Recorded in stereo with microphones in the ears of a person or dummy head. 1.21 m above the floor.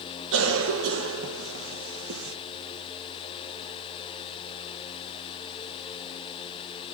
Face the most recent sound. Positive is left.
turn(degrees=-85)